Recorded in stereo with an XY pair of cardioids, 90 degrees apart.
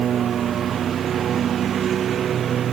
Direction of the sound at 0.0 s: 65° right.